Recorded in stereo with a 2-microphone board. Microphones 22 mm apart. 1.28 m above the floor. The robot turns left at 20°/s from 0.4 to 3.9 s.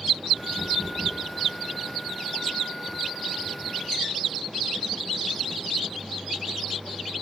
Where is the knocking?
60° left (ahead or behind), 5.5 m; by 1.3 s 45° left (ahead or behind), 5.5 m.